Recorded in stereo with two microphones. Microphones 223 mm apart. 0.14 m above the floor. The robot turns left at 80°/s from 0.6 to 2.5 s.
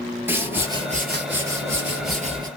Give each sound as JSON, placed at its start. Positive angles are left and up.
{"t": 0.3, "sound": "a whoosh", "azimuth_deg": -10, "distance_m": 1.2}